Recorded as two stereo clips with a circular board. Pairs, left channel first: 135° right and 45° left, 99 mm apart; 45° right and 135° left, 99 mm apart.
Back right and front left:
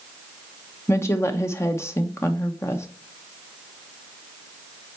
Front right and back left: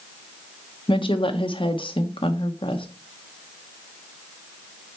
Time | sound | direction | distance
0.9 | a woman speaking | 75° right | 0.8 m